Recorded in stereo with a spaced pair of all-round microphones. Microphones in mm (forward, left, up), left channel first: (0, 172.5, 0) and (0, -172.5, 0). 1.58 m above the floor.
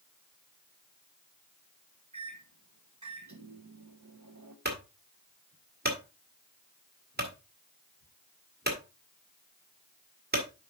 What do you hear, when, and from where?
2.1 s a microwave: 55° right (ahead or behind), 1.1 m
4.7 s a clunk: 30° right (ahead or behind), 2 m